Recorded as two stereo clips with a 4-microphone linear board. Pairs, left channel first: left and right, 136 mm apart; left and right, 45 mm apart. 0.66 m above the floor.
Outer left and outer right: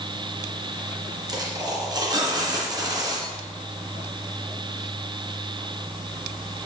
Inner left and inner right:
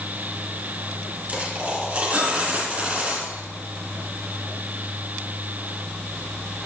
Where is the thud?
I don't hear a thud.